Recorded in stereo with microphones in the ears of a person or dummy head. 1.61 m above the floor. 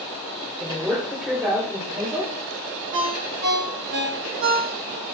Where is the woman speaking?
5° right (ahead or behind), 6.5 m.